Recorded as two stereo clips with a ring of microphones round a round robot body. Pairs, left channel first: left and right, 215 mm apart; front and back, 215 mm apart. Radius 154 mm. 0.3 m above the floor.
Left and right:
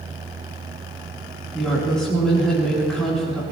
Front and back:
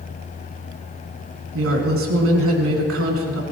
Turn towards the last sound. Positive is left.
turn(degrees=180)